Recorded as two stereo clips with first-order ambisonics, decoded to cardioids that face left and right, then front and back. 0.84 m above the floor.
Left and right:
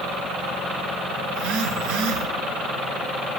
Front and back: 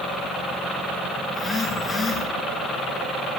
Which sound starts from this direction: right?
A phone buzzing, at 1.3 s.